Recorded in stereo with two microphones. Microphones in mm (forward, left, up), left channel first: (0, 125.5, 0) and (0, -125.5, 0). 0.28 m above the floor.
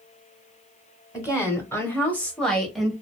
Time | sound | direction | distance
1.1 | a woman speaking | 15° left (ahead or behind) | 1.2 m